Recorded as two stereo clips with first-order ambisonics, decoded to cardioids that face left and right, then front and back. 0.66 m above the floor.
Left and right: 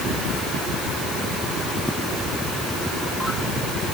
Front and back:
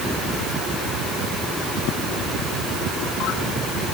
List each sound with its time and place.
Only background noise.